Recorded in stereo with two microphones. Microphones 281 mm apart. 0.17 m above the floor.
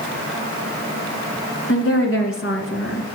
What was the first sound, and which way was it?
A woman speaking, 50° left (ahead or behind).